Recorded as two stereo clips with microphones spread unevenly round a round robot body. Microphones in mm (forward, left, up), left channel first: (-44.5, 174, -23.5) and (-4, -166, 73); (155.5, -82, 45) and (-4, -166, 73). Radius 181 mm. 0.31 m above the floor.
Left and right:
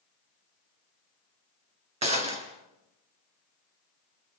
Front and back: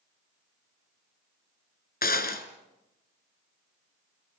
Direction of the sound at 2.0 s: 10° right.